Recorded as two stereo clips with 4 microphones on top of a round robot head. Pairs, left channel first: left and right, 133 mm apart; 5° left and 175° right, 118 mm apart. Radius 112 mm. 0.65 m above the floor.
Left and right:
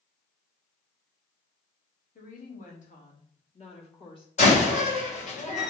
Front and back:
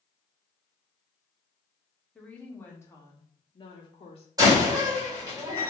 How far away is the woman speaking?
About 1.6 m.